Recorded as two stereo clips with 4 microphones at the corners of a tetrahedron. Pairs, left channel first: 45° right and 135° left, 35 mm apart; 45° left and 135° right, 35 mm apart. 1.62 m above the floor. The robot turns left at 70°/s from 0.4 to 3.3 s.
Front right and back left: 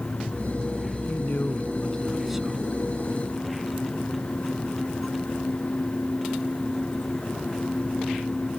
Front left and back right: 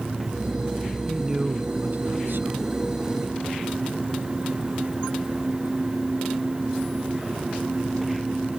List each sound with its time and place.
1.1 s a man speaking: 50° right; by 2.8 s 170° right